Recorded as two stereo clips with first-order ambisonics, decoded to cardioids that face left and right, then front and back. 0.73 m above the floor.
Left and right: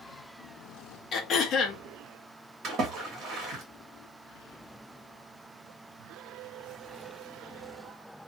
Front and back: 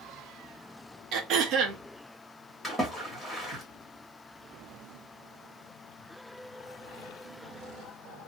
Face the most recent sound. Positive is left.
turn(degrees=-100)